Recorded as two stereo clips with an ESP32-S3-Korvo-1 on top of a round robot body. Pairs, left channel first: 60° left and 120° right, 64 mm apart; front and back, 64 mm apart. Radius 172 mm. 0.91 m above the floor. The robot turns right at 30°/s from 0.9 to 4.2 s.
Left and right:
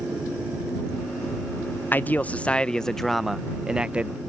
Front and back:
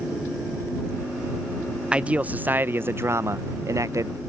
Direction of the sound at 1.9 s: 110° left.